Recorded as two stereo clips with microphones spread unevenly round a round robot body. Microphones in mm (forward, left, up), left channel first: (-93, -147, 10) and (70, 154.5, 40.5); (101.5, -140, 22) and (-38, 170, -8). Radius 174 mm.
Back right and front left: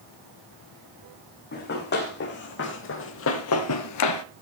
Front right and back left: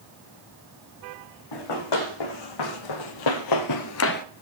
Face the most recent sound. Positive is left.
turn(degrees=-115)